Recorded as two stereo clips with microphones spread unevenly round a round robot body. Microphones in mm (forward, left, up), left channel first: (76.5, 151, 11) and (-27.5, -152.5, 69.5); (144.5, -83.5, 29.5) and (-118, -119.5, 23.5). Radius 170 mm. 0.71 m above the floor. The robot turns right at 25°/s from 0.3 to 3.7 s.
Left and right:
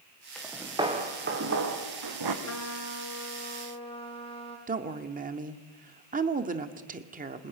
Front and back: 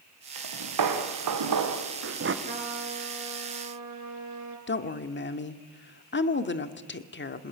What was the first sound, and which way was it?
Footsteps, 160° left.